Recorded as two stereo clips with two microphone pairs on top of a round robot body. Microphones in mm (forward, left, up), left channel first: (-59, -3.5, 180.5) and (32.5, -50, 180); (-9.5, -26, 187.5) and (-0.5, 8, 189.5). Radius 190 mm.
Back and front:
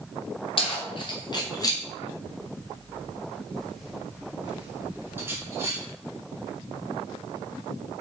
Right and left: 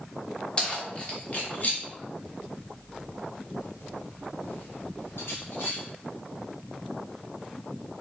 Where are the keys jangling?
170° right, 2.0 m; by 5.8 s 95° right, 2.5 m.